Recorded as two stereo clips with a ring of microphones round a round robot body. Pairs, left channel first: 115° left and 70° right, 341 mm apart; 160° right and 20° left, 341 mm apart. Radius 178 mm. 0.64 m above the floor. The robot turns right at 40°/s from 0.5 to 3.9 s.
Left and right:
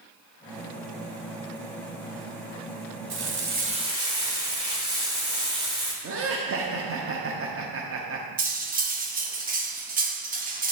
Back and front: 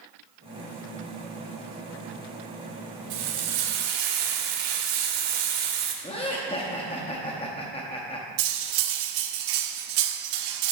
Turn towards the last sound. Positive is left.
turn(degrees=0)